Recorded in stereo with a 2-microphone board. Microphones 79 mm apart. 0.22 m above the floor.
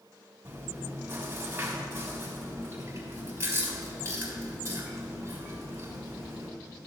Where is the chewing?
30° right (ahead or behind), 1.9 m.